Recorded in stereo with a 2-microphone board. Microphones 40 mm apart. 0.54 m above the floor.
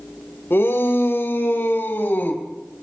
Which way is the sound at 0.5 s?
70° left (ahead or behind).